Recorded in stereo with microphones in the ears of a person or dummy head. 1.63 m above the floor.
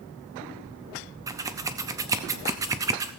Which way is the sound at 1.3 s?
15° right (ahead or behind).